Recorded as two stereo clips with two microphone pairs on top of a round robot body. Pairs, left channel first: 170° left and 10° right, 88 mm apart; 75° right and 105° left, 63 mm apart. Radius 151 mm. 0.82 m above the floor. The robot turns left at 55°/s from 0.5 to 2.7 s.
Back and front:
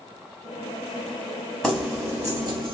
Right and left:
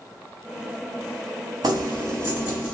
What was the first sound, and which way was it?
Keys jangling, 85° left.